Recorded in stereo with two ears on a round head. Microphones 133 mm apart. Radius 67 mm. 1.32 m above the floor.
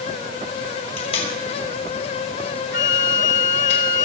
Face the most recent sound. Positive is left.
turn(degrees=55)  # may be behind; listen again after turning